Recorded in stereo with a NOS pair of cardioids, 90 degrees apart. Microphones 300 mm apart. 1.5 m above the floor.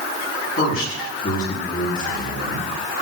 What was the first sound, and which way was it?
A man speaking, 50° left.